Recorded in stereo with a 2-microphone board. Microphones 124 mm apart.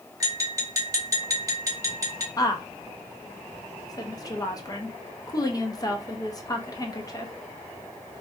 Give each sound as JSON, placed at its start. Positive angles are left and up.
{"t": 0.2, "sound": "tapping", "side_deg": -25, "distance_m": 0.7}
{"t": 2.4, "sound": "a woman speaking", "side_deg": 30, "distance_m": 0.5}